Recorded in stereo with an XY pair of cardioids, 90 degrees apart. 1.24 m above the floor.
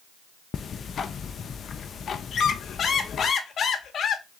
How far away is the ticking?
About 0.5 m.